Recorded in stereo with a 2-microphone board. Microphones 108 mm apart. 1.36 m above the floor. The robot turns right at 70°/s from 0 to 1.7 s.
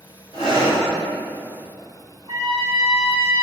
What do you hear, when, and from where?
0.3 s breathing: 65° left, 2.5 m; by 0.8 s 100° left, 2.5 m
2.3 s a trumpet: 75° right (ahead or behind), 2.5 m